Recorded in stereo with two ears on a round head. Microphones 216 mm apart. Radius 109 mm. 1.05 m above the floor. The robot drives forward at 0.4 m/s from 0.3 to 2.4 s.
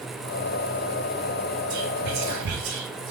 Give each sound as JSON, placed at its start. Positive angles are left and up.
{"t": 1.7, "sound": "whispering", "side_deg": -80, "distance_m": 2.0}